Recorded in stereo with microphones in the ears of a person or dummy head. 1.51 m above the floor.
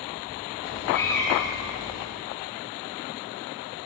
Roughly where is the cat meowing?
Centre.